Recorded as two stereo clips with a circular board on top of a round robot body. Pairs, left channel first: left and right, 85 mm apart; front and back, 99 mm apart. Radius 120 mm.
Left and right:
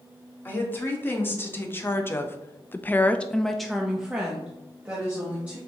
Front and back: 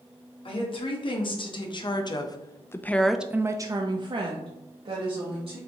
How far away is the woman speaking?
About 1.5 m.